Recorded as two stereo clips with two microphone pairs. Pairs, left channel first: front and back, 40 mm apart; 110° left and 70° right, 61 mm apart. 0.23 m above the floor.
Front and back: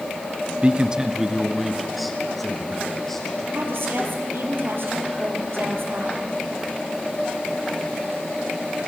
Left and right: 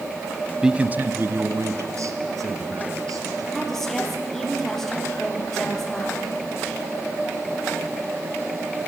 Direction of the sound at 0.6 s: 140° right.